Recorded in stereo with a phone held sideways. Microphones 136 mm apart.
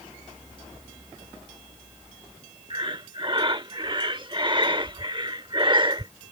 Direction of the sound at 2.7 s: 35° right (ahead or behind).